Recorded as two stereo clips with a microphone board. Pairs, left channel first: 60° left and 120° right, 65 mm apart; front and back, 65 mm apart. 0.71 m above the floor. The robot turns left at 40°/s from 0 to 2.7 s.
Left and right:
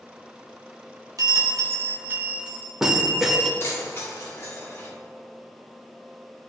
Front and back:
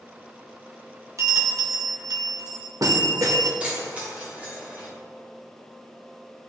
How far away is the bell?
About 0.8 m.